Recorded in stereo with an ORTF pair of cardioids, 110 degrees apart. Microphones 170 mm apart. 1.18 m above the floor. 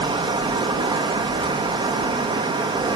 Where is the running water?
30° right, 1.1 m.